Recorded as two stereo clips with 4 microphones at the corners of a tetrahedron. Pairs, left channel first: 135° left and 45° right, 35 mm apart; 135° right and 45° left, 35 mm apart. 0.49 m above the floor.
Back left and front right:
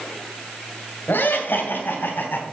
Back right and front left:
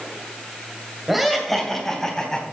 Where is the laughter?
130° left, 2 m; by 2.4 s 150° left, 3 m.